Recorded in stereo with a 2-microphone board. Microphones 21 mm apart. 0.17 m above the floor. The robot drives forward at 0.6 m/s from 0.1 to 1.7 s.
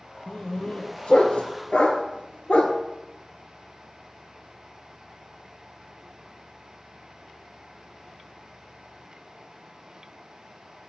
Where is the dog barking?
45° left (ahead or behind), 1.1 m; by 2.8 s 70° left (ahead or behind), 0.8 m.